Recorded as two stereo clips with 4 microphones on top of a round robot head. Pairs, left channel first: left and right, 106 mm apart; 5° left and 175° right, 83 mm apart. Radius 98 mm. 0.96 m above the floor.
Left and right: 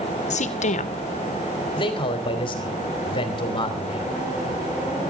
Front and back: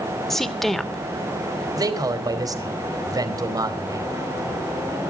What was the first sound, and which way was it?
A woman speaking, 95° left.